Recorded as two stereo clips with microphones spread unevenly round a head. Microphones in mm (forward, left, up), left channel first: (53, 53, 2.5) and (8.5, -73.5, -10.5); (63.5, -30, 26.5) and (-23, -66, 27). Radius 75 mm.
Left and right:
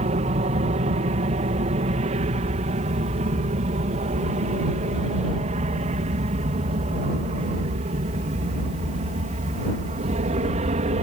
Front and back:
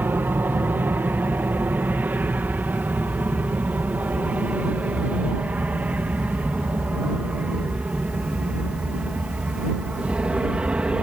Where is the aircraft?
95° right; by 11.0 s 80° right.